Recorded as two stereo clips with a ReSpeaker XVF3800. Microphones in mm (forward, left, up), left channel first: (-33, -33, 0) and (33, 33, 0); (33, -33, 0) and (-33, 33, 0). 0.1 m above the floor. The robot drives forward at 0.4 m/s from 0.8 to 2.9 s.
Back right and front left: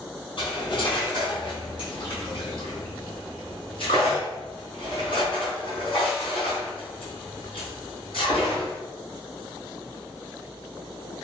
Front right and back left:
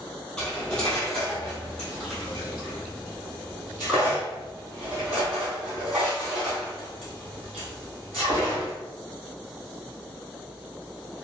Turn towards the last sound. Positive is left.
turn(degrees=-145)